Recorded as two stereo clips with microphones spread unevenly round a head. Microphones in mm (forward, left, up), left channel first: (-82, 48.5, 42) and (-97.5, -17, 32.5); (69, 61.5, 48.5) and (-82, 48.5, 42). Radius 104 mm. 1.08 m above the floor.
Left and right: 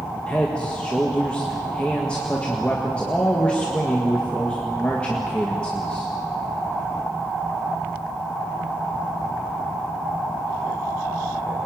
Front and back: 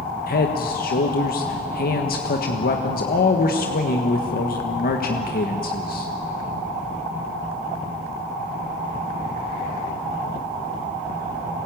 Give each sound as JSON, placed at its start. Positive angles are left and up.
{"t": 0.3, "sound": "a man speaking", "azimuth_deg": -5, "distance_m": 1.6}